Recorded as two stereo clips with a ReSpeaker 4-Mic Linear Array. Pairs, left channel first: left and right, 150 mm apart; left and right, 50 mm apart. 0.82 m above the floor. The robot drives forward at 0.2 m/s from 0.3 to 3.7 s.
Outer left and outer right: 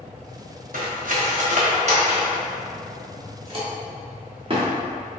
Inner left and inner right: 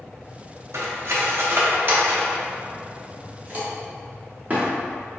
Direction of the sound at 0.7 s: 65° right (ahead or behind).